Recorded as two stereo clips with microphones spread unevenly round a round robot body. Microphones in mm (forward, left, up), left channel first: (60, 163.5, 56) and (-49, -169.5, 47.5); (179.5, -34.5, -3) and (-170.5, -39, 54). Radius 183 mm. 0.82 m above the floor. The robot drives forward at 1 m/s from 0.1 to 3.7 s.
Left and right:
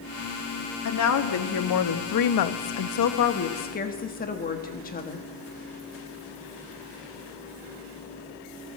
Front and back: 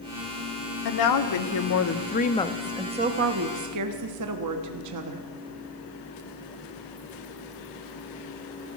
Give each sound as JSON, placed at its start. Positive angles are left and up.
{"t": 0.8, "sound": "a woman speaking", "azimuth_deg": 25, "distance_m": 2.0}